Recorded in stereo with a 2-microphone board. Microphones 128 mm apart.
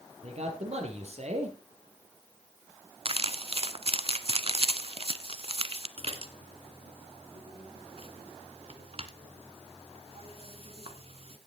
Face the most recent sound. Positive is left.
turn(degrees=-50)  # may be behind; listen again after turning